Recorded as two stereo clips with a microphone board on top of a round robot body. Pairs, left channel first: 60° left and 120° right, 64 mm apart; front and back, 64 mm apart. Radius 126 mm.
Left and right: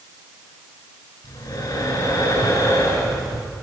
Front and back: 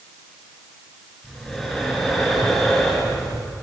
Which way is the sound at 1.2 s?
95° left.